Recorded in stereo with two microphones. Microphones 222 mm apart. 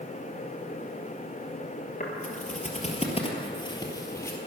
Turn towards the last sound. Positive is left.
turn(degrees=10)  # may be behind; listen again after turning